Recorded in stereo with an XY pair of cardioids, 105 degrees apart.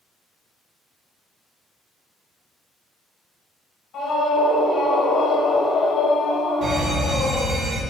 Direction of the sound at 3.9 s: 65° left.